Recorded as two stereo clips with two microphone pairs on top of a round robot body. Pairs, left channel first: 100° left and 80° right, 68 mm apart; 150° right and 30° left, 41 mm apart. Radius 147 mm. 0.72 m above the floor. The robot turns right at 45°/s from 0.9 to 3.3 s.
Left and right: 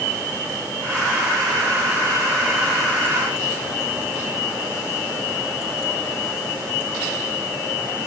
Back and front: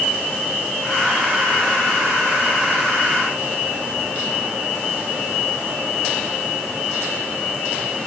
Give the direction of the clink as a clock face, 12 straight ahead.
I don't hear a clink.